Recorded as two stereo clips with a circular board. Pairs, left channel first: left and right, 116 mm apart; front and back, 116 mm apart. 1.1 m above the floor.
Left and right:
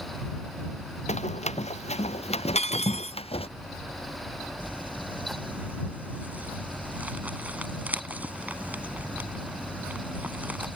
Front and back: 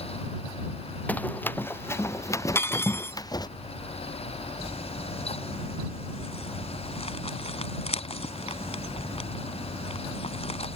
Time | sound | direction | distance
1.1 | running footsteps | 75° left | ?
2.5 | cutlery clinking | 70° left | ?
4.6 | crumpling | 15° right | ?